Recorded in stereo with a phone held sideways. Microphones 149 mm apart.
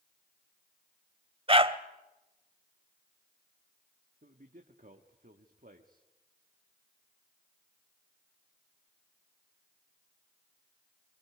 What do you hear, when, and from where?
1.5 s a dog barking: 40° right (ahead or behind), 0.9 m
4.2 s a man speaking: 65° right (ahead or behind), 1.4 m